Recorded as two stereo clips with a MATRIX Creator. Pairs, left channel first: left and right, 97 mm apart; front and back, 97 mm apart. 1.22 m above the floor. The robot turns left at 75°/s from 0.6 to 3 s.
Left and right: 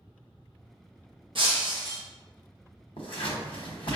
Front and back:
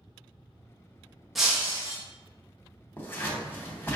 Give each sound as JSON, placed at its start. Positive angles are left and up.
{"t": 1.4, "sound": "breaking glass", "azimuth_deg": -90, "distance_m": 0.7}
{"t": 3.0, "sound": "scissors", "azimuth_deg": 70, "distance_m": 0.8}